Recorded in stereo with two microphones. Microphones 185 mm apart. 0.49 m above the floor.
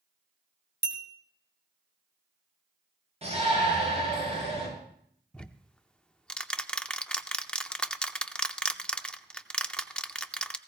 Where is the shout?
35° right (ahead or behind), 7 m.